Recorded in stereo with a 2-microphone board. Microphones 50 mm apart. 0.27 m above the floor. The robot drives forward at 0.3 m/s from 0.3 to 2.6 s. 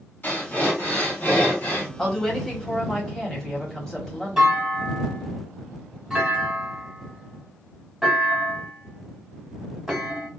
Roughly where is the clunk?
Centre.